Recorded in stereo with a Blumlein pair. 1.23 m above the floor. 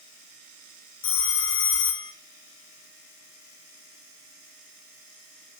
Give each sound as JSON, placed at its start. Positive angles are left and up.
{"t": 1.0, "sound": "a phone ringing", "azimuth_deg": 60, "distance_m": 0.9}